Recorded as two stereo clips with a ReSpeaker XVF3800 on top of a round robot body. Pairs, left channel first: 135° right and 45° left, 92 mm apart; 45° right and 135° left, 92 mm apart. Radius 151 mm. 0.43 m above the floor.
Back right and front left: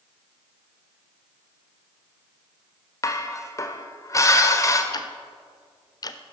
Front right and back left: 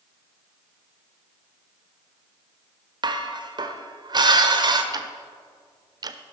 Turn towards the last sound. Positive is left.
turn(degrees=180)